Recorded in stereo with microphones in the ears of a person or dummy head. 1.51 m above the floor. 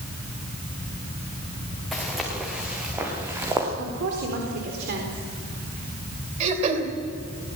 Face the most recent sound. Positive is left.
turn(degrees=-40)  # may be behind; listen again after turning